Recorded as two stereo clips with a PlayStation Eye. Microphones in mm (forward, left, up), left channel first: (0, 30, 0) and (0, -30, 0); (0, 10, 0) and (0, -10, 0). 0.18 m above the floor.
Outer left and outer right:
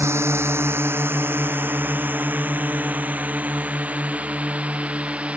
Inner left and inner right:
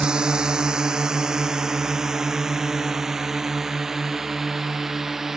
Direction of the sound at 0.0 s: 50° right (ahead or behind).